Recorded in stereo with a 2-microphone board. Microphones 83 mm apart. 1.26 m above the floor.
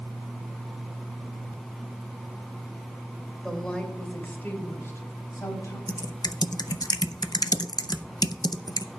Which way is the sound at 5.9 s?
55° left (ahead or behind).